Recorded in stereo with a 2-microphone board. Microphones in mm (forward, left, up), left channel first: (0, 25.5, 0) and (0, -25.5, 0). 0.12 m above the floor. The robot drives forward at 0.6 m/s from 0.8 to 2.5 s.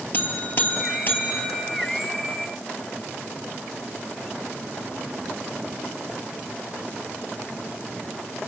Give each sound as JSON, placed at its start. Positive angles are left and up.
{"t": 0.1, "sound": "a buzzer", "side_deg": 40, "distance_m": 2.5}